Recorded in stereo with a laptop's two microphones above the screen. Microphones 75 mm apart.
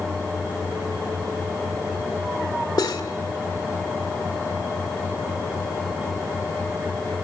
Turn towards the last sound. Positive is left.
turn(degrees=75)  # may be behind; listen again after turning